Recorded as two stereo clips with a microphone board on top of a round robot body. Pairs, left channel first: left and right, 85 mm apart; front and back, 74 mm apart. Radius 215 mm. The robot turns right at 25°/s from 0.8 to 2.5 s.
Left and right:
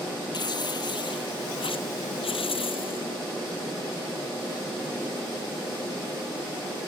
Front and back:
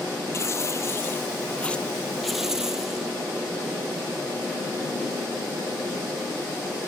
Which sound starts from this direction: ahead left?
Tearing paper, at 0.3 s.